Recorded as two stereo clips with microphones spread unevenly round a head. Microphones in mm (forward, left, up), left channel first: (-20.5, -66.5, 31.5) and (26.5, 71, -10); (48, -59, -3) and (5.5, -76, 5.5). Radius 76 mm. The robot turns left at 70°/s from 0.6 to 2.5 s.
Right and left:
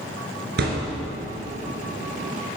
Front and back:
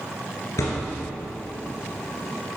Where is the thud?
50° left, 1.8 m; by 1.0 s 20° left, 1.8 m.